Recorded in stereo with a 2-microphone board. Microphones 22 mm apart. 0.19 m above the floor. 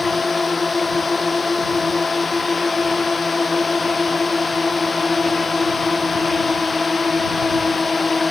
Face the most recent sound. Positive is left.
turn(degrees=0)  # may be behind; listen again after turning